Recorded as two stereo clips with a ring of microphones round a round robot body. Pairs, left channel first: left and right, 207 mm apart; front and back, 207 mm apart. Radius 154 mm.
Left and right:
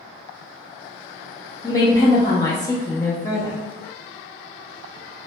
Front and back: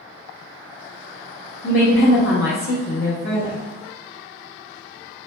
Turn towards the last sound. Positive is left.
turn(degrees=20)